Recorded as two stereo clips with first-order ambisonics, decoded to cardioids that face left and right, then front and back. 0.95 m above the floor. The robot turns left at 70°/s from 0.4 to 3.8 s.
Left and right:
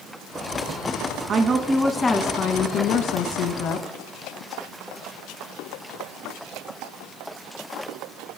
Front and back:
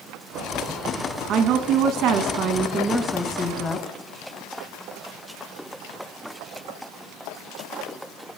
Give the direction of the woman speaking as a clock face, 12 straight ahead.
5 o'clock.